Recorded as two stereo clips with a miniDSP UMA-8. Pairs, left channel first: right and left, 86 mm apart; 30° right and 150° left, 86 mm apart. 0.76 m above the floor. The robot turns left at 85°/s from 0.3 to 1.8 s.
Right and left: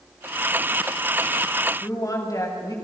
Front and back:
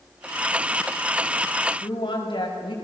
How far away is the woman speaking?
About 6 m.